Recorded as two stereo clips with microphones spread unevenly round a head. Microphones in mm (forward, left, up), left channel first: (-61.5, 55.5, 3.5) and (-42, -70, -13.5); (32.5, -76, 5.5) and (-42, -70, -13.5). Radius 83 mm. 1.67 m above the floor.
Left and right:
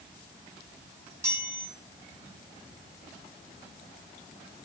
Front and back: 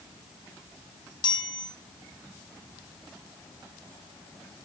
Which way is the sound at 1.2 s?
Straight ahead.